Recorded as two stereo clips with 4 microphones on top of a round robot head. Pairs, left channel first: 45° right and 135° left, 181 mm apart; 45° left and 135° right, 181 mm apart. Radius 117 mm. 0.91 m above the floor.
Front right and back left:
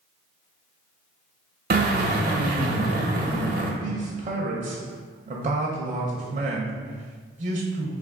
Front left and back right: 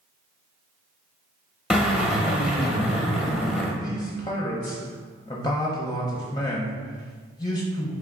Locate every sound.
1.7 s a drill: 140° left, 1.1 m
3.8 s a man speaking: 110° left, 0.7 m